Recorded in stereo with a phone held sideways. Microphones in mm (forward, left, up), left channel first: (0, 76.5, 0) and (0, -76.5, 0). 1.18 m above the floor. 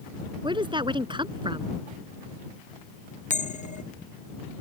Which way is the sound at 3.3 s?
50° left (ahead or behind).